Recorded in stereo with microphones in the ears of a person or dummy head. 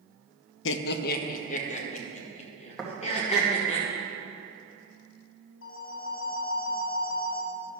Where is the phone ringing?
60° left (ahead or behind), 1.5 m.